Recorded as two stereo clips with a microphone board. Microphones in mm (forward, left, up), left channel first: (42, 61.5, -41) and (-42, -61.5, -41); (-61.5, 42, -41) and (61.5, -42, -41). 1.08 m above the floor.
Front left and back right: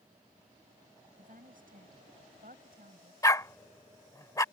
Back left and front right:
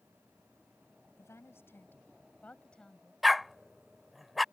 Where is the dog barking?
55° left.